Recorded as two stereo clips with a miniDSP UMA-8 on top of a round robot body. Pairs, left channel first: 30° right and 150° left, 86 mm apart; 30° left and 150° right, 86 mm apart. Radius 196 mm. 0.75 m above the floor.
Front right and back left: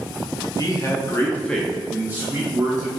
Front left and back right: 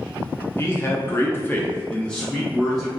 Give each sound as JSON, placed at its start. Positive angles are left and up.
{"t": 0.6, "sound": "a man speaking", "azimuth_deg": -20, "distance_m": 1.1}